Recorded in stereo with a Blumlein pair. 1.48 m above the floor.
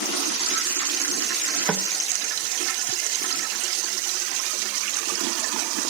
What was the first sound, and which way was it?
Knocking, 15° right.